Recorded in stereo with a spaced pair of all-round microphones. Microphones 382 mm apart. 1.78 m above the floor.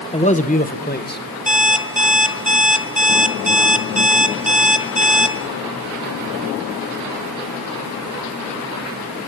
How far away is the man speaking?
About 1.4 m.